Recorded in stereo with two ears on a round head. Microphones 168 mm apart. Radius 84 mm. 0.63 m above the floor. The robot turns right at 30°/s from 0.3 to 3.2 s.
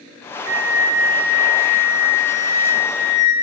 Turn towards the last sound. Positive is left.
turn(degrees=50)